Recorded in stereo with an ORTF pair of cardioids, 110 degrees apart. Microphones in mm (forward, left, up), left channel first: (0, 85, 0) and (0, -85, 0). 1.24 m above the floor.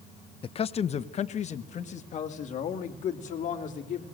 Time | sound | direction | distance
0.4 | a man speaking | 35° left | 0.5 m